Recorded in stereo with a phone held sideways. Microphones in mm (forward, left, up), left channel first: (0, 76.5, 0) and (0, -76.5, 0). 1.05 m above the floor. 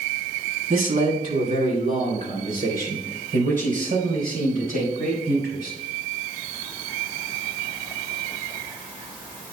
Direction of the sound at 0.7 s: 70° right (ahead or behind).